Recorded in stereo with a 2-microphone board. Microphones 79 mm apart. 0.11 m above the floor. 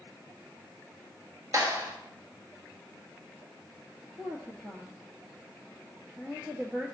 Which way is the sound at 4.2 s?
25° right (ahead or behind).